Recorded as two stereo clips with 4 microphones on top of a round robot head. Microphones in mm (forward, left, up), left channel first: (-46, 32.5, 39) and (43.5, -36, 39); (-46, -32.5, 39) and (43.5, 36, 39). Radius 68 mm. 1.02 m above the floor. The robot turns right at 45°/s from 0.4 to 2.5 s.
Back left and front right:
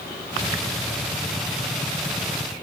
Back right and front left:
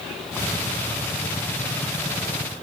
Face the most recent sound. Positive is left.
No sound to turn to.